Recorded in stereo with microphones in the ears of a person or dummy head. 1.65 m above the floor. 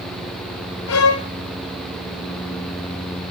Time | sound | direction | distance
0.9 | a violin | 80° left | 0.8 m